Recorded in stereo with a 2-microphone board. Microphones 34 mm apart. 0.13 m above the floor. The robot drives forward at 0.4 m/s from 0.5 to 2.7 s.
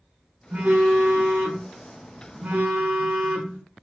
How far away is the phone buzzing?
About 2.5 m.